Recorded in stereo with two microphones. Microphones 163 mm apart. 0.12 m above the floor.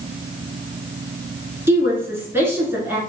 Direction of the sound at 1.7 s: 15° right (ahead or behind).